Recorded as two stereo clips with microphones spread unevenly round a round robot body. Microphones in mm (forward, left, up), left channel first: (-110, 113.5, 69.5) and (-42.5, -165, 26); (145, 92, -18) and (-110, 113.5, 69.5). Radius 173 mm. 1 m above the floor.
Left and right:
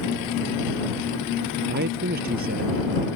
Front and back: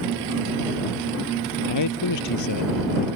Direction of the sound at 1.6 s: 15° right.